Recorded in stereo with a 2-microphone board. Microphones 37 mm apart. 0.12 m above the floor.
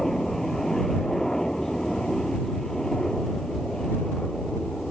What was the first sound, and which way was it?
A helicopter, 10° left (ahead or behind).